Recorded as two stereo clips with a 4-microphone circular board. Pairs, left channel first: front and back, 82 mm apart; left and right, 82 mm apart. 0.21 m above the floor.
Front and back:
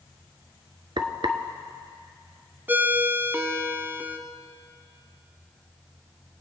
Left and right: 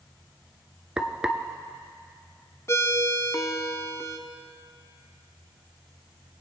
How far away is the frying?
About 0.8 m.